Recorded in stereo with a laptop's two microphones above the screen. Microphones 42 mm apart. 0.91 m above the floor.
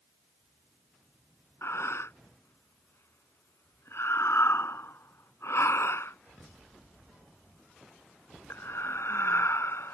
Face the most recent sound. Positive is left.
turn(degrees=75)  # may be behind; listen again after turning